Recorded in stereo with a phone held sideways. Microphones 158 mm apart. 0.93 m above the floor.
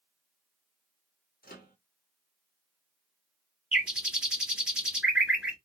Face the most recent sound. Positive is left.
turn(degrees=-5)  # may be behind; listen again after turning